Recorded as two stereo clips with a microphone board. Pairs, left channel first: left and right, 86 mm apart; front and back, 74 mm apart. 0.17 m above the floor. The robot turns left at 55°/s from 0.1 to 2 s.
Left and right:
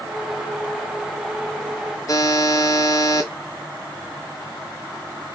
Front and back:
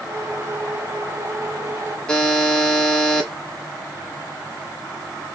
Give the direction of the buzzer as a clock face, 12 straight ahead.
10 o'clock.